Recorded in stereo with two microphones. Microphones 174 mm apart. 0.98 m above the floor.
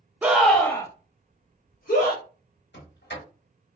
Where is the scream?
10° right (ahead or behind), 0.7 m; by 2.2 s 65° left (ahead or behind), 1.1 m.